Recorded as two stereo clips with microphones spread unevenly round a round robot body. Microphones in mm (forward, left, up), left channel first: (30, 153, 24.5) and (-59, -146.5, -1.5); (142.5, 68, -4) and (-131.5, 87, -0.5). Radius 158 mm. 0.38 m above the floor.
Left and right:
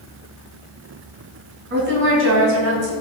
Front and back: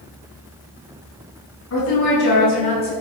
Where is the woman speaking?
50° right, 3.5 m; by 2.9 s 75° right, 2.5 m.